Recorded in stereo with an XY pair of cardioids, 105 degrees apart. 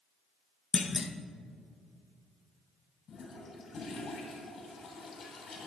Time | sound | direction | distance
0.7 | a clunk | 35° left | 0.8 m
3.1 | a toilet flushing | 50° left | 2.5 m